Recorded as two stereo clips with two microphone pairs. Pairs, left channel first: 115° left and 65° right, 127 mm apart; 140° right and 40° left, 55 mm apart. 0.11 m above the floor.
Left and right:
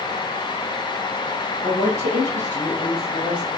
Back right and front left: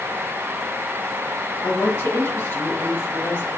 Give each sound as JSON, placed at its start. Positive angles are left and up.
{"t": 1.6, "sound": "a woman speaking", "azimuth_deg": -175, "distance_m": 3.0}